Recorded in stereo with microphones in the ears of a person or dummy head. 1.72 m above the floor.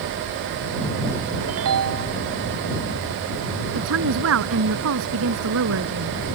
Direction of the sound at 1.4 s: 80° right.